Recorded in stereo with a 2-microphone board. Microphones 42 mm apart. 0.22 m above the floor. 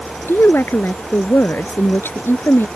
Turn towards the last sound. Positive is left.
turn(degrees=70)  # may be behind; listen again after turning